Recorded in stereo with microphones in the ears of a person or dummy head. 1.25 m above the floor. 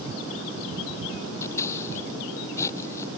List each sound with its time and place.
1.4 s scissors: 15° left (ahead or behind)